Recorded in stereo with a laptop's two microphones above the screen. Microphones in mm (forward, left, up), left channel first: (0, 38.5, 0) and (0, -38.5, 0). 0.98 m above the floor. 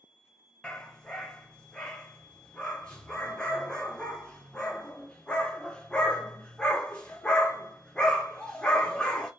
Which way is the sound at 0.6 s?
10° left (ahead or behind).